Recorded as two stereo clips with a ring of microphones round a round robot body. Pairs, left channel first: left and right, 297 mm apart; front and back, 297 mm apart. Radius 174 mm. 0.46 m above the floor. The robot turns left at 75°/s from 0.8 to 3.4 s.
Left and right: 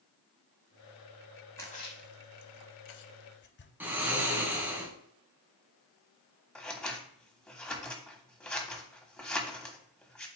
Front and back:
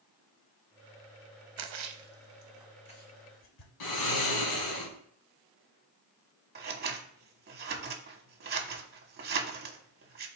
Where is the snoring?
5° right, 2 m.